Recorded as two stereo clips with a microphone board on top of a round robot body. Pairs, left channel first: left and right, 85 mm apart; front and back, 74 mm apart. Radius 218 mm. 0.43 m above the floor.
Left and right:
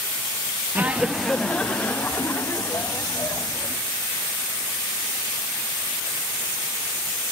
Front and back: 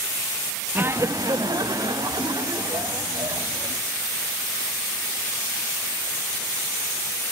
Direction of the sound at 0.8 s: 135° right.